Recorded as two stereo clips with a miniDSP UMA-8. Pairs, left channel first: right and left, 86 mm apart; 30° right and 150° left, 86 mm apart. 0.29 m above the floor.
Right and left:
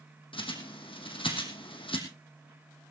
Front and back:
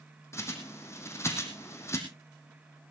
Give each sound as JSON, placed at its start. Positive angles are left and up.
{"t": 0.3, "sound": "a bird", "azimuth_deg": -85, "distance_m": 2.5}